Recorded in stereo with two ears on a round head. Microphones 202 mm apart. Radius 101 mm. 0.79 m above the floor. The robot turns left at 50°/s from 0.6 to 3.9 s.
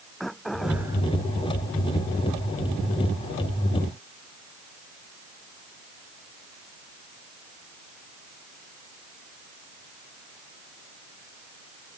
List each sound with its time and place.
0.2 s throat clearing: centre (ahead or behind); by 1.0 s 20° right (ahead or behind)